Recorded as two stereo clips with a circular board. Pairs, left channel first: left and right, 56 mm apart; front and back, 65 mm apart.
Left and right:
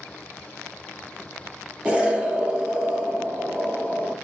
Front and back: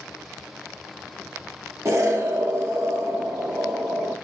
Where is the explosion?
155° right, 0.8 m.